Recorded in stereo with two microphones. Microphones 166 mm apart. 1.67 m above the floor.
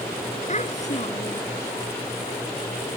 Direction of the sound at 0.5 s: 45° left (ahead or behind).